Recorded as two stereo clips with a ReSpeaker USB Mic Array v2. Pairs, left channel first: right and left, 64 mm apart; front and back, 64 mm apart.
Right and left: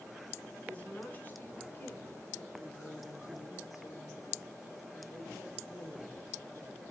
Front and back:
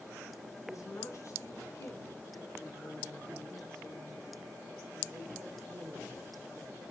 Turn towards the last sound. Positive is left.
turn(degrees=-125)